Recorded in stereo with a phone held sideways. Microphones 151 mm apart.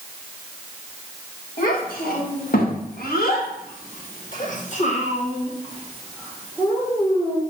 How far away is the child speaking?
About 2 m.